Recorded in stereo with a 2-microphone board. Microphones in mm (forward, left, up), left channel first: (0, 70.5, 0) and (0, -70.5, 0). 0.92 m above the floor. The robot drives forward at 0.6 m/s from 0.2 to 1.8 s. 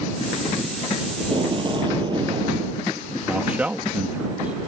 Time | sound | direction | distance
1.2 | tape being pulled | 35° right (ahead or behind) | ?
3.3 | a man speaking | 10° right (ahead or behind) | ?